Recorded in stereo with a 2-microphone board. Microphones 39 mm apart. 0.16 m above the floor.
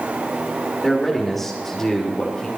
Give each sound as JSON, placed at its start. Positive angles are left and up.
{"t": 0.8, "sound": "a man speaking", "side_deg": -5, "distance_m": 4.5}